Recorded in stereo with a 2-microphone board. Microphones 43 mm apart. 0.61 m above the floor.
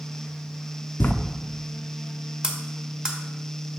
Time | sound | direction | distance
1.0 | writing | 50° left (ahead or behind) | 0.5 m
2.4 | cutlery clinking | 20° right (ahead or behind) | 1.0 m